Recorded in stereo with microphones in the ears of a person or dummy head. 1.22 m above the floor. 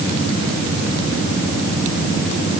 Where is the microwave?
I don't hear a microwave.